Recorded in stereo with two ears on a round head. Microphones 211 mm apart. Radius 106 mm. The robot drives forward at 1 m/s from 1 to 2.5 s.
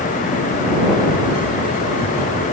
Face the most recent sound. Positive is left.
No sound to turn to.